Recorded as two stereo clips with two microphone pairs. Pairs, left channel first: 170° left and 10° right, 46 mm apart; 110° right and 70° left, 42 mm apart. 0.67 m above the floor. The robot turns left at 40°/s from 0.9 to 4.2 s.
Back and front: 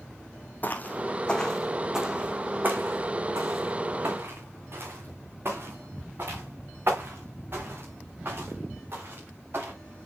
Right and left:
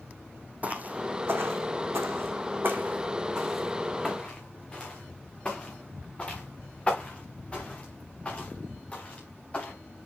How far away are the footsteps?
About 2 m.